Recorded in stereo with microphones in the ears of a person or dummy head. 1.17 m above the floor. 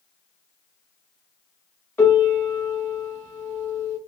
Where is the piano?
10° left (ahead or behind), 0.8 m.